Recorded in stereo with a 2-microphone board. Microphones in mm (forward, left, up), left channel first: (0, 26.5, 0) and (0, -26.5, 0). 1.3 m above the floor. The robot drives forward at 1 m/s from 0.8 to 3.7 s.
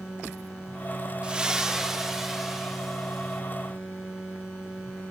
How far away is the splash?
About 0.5 m.